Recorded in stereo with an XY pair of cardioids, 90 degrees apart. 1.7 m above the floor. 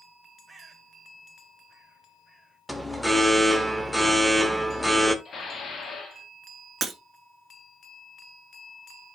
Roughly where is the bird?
Ahead.